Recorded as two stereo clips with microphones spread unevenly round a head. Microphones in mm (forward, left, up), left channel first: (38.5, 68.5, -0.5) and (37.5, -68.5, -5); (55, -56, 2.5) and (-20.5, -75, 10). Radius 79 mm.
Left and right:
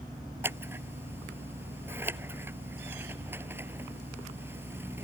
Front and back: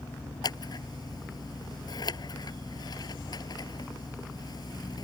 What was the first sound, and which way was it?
Scissors, 15° right.